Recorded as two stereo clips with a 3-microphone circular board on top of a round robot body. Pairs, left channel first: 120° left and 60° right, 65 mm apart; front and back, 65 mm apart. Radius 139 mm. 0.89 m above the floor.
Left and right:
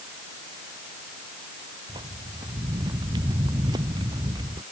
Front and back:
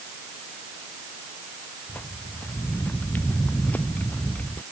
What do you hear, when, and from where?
1.9 s footsteps: 60° right; by 4.6 s 65° right